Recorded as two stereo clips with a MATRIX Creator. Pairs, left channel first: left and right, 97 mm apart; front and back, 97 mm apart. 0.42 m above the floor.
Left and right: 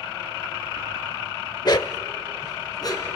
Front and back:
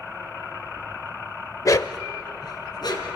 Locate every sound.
1.6 s a dog barking: 50° left, 0.6 m; by 3.2 s 45° left, 2.5 m